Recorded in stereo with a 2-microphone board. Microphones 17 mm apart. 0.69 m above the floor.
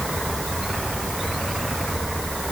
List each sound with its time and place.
Only background noise.